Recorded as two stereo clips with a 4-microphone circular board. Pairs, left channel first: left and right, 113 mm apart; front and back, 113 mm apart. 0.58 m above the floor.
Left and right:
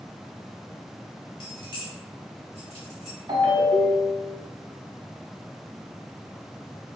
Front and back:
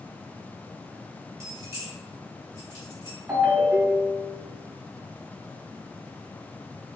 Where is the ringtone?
110° right, 1.2 m.